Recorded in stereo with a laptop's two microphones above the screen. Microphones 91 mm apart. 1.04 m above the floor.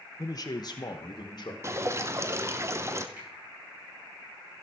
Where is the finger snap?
15° right (ahead or behind), 8 m.